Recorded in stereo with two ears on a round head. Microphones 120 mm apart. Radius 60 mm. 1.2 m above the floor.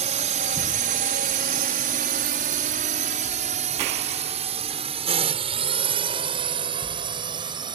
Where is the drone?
55° right (ahead or behind); by 7.8 s 35° right (ahead or behind).